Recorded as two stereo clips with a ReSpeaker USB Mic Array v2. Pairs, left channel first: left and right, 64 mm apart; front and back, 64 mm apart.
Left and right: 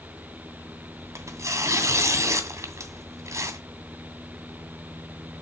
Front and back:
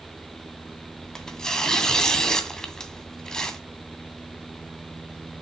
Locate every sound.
1.0 s tearing paper: 80° right, 2 m